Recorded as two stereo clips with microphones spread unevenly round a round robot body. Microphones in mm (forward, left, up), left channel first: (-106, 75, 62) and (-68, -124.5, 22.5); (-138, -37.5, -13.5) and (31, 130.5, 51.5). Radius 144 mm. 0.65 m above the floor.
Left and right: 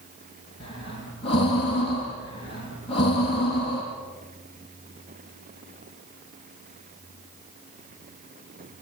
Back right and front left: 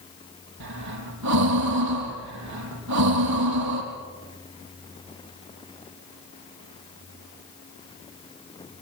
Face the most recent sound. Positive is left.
turn(degrees=30)